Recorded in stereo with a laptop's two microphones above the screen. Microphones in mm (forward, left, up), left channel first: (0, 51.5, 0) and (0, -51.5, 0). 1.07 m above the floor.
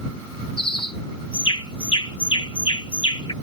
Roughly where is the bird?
Left.